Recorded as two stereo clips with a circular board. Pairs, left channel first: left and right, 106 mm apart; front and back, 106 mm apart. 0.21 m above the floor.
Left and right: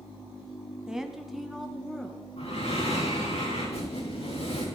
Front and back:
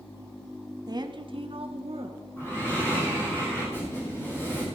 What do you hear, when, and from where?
0.9 s a woman speaking: 170° right, 1.2 m; by 2.2 s 175° left, 3 m
2.4 s breathing: 70° left, 7 m